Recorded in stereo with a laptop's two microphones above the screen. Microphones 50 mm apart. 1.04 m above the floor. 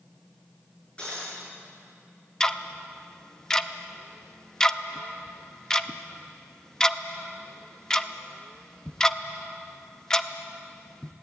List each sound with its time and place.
1.0 s breaking glass: 25° left (ahead or behind), 8 m
2.4 s ticking: 15° left (ahead or behind), 0.5 m